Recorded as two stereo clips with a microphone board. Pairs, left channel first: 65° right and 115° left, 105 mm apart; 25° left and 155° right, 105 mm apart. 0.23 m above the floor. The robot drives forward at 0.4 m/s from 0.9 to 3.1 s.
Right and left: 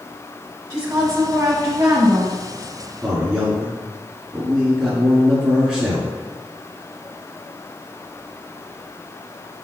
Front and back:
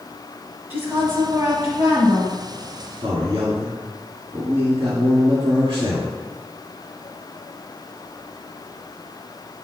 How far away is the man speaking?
About 2 m.